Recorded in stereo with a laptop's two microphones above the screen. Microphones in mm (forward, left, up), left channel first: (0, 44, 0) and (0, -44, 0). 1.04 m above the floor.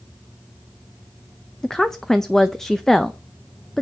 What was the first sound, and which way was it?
A woman speaking, 5° left (ahead or behind).